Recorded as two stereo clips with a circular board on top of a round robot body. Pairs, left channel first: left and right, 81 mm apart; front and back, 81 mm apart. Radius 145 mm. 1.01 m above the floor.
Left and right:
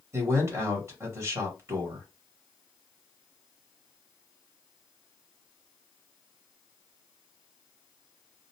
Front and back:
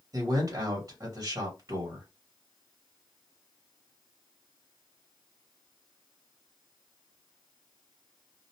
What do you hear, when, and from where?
0.1 s a man speaking: 140° right, 1.3 m